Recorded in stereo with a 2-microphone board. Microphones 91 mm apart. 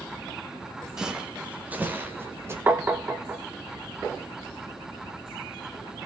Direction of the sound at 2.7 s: 25° right (ahead or behind).